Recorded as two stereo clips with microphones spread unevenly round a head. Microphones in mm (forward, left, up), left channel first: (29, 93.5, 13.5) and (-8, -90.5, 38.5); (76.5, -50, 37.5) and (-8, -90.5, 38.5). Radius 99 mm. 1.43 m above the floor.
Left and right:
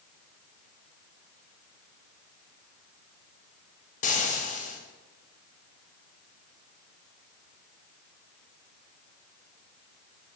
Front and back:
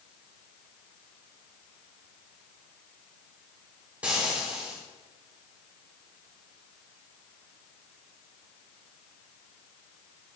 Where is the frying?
125° left, 1.0 m.